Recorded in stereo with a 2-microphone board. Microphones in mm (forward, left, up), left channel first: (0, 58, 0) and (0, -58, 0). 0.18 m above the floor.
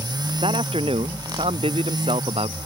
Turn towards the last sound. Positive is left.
turn(degrees=-60)  # may be behind; listen again after turning